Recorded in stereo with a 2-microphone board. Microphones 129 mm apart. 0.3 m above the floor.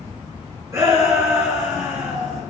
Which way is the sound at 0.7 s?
25° right (ahead or behind).